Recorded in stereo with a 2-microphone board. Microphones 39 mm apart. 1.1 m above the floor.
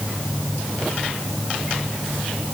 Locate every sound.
Only background noise.